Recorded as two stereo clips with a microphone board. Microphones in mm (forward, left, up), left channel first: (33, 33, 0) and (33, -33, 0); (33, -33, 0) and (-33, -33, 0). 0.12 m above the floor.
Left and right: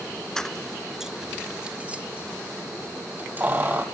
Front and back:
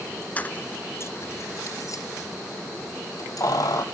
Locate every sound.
0.4 s keys jangling: 25° left, 0.8 m; by 3.8 s 30° right, 2.5 m